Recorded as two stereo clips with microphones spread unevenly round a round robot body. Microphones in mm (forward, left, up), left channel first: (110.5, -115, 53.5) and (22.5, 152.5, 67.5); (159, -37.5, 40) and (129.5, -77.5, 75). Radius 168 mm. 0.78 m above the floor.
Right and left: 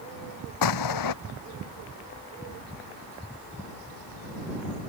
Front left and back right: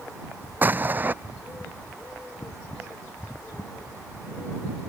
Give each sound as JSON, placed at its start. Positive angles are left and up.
{"t": 0.6, "sound": "an explosion", "azimuth_deg": -80}